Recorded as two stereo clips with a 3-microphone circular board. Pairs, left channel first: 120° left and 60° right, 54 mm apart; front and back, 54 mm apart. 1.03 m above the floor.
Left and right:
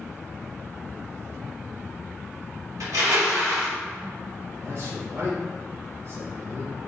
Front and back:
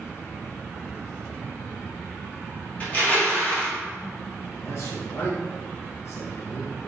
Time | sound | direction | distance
2.8 | crushing | 65° right | 1.9 m
4.6 | a man speaking | 25° right | 2.5 m